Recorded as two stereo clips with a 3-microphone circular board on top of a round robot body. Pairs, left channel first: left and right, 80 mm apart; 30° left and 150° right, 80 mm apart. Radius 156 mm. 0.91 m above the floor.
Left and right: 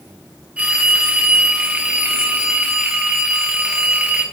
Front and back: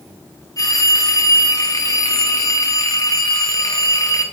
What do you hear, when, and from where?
0.6 s a phone ringing: 15° right, 1.0 m